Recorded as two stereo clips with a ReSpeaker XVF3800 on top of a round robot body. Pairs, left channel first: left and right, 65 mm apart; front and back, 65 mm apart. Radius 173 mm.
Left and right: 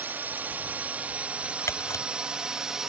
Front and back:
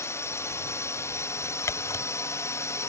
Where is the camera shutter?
45° left.